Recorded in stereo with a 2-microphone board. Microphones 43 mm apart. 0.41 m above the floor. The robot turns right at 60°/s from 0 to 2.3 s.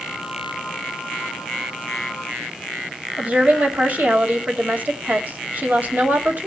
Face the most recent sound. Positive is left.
turn(degrees=-45)  # may be behind; listen again after turning